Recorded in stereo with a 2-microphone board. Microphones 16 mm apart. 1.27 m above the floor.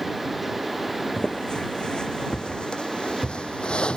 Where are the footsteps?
45° left (ahead or behind); by 4.0 s 60° left (ahead or behind).